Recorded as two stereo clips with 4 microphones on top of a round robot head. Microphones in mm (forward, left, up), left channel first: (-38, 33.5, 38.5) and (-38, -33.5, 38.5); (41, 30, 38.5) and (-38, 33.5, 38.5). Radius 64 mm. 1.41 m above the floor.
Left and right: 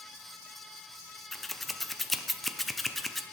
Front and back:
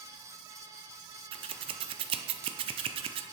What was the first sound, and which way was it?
Scissors, straight behind.